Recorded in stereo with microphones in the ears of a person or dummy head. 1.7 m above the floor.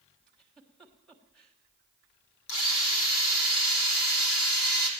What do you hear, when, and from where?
0.3 s a giggle: 5° left (ahead or behind), 1.5 m
2.5 s a drill: 80° left, 3.5 m